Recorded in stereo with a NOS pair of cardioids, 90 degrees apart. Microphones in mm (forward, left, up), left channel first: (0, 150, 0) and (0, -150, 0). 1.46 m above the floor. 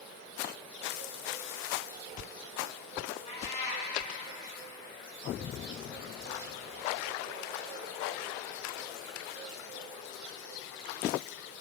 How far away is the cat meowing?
About 4.5 m.